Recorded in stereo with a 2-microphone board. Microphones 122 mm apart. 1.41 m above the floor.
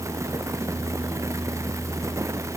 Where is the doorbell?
I don't hear a doorbell.